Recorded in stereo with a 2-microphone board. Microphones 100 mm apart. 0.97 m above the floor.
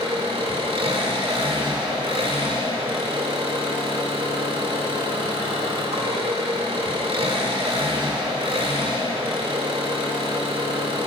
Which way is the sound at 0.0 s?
75° right (ahead or behind).